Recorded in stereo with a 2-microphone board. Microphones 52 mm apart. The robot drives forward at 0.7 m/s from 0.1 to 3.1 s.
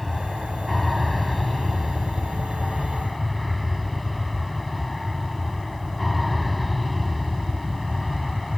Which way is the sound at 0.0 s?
Centre (ahead or behind).